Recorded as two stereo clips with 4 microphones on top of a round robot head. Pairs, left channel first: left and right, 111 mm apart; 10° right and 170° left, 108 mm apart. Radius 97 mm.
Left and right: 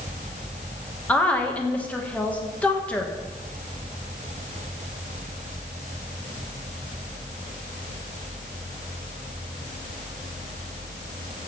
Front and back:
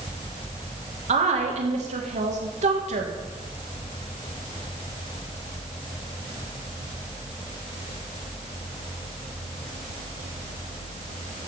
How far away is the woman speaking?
About 1.8 m.